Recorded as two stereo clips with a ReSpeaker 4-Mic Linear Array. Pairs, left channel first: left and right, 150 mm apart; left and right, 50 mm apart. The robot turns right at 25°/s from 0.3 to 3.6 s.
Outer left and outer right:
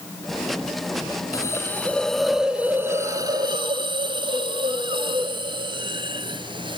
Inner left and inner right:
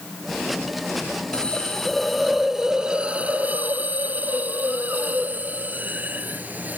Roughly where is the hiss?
Behind left.